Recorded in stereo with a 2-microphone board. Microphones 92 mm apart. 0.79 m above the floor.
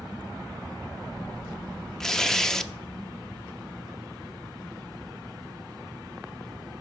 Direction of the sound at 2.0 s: 5° left (ahead or behind).